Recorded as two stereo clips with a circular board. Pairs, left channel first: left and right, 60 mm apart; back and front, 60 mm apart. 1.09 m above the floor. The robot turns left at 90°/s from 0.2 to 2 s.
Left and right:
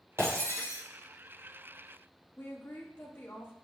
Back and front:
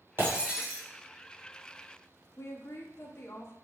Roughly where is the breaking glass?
Ahead right.